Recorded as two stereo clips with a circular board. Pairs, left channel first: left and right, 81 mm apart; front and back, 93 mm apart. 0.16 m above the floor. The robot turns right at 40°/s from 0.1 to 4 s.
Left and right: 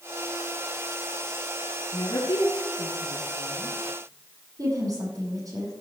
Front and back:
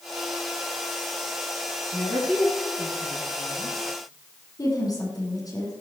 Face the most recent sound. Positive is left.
turn(degrees=-45)